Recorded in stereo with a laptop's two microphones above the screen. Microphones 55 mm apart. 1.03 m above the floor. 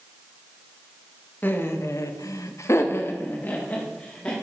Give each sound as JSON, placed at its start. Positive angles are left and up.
{"t": 1.4, "sound": "laughter", "side_deg": 35, "distance_m": 0.8}